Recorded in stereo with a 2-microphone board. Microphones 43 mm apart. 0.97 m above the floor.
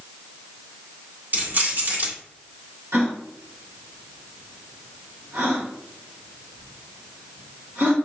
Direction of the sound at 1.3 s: 45° right (ahead or behind).